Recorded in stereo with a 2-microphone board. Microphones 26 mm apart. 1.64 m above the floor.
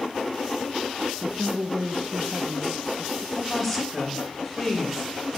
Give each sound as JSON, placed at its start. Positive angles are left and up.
{"t": 1.2, "sound": "a woman speaking", "side_deg": -70, "distance_m": 0.5}
{"t": 3.4, "sound": "a woman speaking", "side_deg": 0, "distance_m": 1.8}